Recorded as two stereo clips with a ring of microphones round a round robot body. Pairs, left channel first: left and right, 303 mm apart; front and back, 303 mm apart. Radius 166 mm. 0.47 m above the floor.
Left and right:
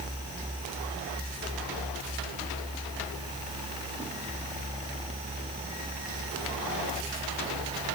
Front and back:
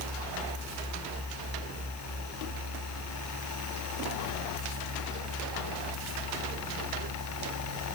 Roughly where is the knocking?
No knocking in this recording.